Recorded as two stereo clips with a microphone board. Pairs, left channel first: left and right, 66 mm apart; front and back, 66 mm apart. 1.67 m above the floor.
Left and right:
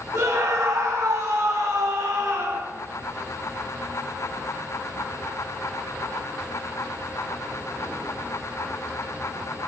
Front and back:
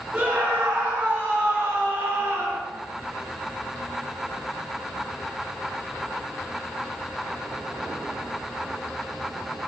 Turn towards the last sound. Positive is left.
turn(degrees=-120)